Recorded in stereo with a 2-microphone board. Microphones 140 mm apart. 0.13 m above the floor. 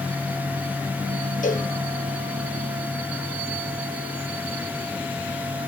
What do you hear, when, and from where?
1.4 s a cowbell: 65° left (ahead or behind), 3 m